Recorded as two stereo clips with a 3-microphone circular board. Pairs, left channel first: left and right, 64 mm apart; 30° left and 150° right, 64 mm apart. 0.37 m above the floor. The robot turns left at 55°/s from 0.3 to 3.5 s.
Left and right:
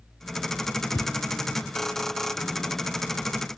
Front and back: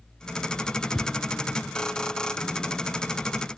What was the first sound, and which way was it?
A thud, 125° left.